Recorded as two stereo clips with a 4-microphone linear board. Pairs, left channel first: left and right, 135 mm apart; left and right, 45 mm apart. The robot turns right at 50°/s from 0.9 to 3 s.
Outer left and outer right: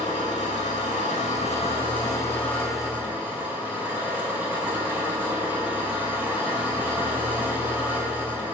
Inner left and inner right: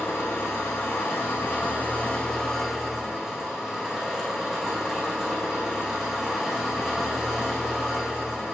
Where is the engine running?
90° left, 4.5 m; by 8.5 s 165° right, 4.5 m.